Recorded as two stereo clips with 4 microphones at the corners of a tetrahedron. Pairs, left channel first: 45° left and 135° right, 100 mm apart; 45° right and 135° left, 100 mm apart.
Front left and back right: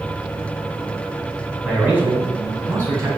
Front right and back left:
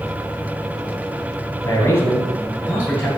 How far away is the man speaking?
About 1.7 m.